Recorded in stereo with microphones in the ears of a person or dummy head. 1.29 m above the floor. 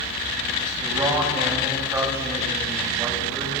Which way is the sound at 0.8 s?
10° right (ahead or behind).